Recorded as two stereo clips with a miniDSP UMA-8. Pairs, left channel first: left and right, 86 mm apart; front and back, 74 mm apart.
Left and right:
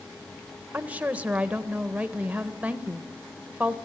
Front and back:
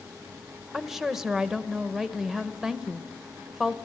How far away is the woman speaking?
About 0.9 m.